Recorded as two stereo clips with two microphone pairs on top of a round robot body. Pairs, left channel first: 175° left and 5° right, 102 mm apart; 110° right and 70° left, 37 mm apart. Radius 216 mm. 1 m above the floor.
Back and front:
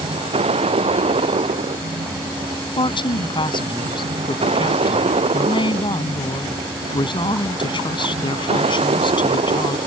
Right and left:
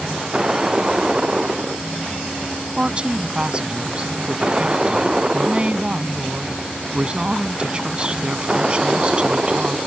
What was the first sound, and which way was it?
A vehicle, 10° left.